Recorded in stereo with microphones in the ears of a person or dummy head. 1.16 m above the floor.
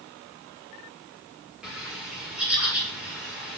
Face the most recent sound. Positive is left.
turn(degrees=0)  # may be behind; listen again after turning